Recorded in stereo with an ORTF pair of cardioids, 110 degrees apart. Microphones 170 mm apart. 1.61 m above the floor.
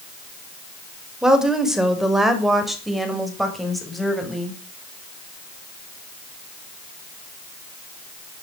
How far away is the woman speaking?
About 5.5 m.